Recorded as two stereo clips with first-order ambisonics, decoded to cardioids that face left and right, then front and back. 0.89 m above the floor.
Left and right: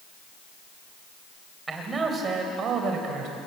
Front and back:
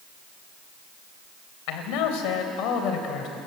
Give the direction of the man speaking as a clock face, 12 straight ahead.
12 o'clock.